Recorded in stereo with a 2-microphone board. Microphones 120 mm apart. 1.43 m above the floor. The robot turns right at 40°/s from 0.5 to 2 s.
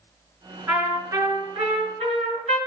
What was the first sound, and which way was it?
A trumpet, 165° right.